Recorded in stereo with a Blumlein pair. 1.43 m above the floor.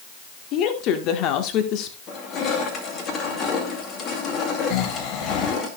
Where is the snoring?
35° left, 1.3 m.